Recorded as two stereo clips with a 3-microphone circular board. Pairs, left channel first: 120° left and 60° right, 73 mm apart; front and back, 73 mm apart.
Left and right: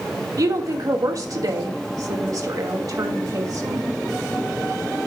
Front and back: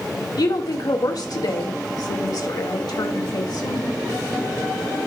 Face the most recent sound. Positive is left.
turn(degrees=-25)